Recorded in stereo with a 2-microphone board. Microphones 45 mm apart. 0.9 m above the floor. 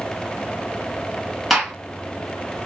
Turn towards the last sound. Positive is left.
turn(degrees=-5)  # may be behind; listen again after turning